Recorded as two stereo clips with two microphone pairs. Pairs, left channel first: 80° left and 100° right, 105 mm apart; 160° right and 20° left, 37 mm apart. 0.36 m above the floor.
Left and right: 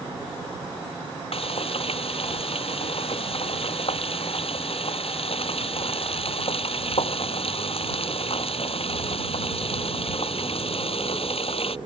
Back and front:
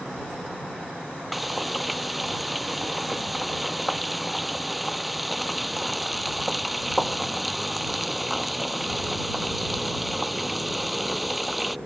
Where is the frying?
105° left.